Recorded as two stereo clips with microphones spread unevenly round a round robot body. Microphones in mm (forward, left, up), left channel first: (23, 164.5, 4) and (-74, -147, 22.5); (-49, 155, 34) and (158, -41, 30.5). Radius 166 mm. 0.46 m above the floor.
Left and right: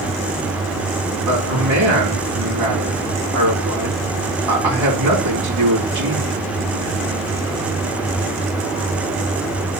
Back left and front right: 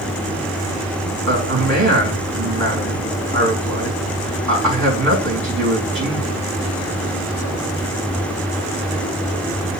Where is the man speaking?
80° right, 4.5 m.